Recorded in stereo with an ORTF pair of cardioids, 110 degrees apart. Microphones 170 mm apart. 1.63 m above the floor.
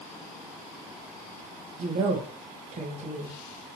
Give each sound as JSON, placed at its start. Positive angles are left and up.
{"t": 1.8, "sound": "a woman speaking", "azimuth_deg": -45, "distance_m": 1.6}